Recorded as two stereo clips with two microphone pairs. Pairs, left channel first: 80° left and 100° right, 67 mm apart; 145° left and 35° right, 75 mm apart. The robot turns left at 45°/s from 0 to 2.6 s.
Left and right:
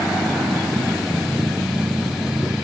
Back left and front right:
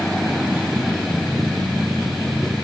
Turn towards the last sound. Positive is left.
No sound to turn to.